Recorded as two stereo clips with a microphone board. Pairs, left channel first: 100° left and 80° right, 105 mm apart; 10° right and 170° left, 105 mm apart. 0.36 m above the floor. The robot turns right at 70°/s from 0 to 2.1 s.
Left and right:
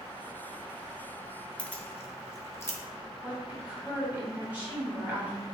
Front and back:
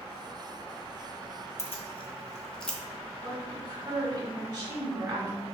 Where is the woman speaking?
150° right, 1.8 m.